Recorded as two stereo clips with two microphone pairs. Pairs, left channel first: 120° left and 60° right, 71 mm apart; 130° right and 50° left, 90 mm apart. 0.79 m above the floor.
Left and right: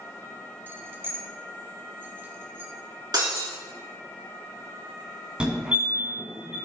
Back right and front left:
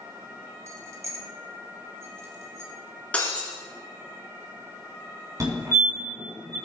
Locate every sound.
0.7 s keys jangling: straight ahead, 0.8 m
3.1 s breaking glass: 55° right, 3 m
5.4 s a fire alarm: 15° left, 3 m